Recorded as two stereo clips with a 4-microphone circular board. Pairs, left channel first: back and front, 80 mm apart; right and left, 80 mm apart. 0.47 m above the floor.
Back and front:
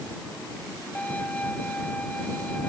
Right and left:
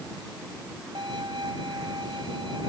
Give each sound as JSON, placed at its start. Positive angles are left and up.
{"t": 0.9, "sound": "a violin", "azimuth_deg": 110}